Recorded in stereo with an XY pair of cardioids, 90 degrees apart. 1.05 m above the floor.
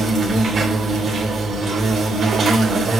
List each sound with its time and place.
0.0 s an insect: 60° right, 3.5 m